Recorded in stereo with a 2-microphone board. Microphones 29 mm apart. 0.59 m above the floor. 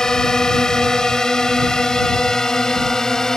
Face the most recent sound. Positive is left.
turn(degrees=20)  # may be behind; listen again after turning